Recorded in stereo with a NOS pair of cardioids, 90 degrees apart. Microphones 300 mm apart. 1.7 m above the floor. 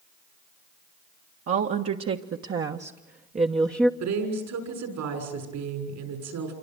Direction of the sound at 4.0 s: 70° right.